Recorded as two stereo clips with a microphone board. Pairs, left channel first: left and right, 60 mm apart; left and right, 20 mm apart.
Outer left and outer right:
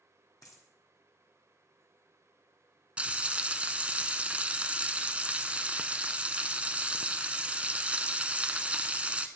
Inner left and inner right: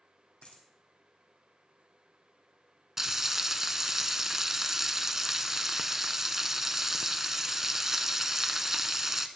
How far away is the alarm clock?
No alarm clock in this recording.